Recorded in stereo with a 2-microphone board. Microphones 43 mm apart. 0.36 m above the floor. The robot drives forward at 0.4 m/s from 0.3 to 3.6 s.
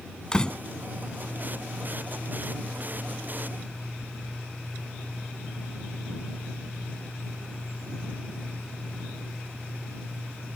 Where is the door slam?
15° left (ahead or behind).